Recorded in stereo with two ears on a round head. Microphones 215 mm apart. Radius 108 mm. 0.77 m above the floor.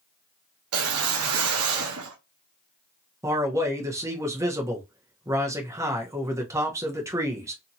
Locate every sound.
0.7 s a whoosh: 65° right (ahead or behind), 0.7 m
3.2 s a man speaking: 15° right (ahead or behind), 0.8 m